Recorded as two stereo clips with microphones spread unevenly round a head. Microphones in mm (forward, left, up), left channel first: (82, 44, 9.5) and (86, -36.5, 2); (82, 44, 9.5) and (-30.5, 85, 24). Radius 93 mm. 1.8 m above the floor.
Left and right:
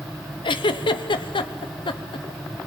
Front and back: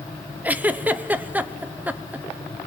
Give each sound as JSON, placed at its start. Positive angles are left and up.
{"t": 0.4, "sound": "a giggle", "azimuth_deg": 85, "distance_m": 1.0}